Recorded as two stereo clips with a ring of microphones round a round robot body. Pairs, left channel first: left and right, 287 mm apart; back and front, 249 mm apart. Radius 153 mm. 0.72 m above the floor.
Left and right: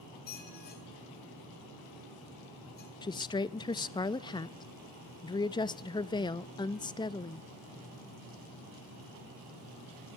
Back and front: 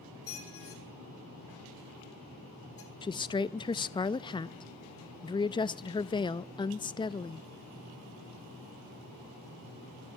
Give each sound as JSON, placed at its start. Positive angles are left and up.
{"t": 0.3, "sound": "a squeak", "azimuth_deg": 150, "distance_m": 4.5}
{"t": 3.0, "sound": "a woman speaking", "azimuth_deg": 140, "distance_m": 0.5}